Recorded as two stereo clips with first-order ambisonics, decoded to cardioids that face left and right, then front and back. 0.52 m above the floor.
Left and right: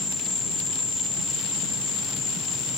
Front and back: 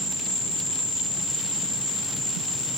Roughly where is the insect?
Ahead left.